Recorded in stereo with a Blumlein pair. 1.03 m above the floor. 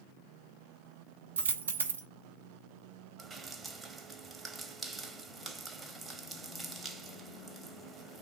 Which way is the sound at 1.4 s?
70° right.